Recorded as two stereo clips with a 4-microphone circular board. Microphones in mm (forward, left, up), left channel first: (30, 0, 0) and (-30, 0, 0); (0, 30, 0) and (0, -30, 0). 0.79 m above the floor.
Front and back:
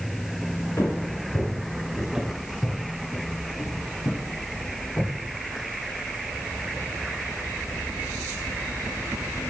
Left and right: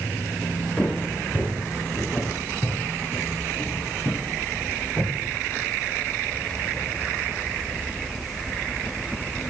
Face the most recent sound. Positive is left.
turn(degrees=35)